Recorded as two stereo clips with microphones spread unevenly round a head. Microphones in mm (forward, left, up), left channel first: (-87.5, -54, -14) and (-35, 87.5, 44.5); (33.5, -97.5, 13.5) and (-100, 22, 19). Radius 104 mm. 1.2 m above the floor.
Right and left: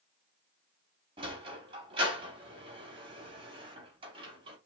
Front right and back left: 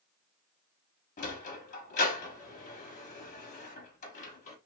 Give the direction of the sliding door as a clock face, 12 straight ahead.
12 o'clock.